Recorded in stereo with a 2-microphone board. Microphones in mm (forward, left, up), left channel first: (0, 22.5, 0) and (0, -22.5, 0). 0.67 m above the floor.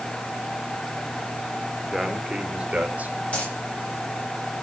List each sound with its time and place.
1.9 s a man speaking: centre (ahead or behind), 2 m; by 3.1 s 35° right (ahead or behind), 3 m
3.3 s a dropped coin: 35° left (ahead or behind), 8 m